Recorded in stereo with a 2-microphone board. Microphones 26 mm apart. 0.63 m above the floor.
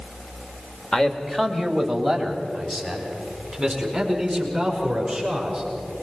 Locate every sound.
0.9 s a man speaking: 25° left (ahead or behind), 1.8 m; by 5.6 s 10° right (ahead or behind), 8 m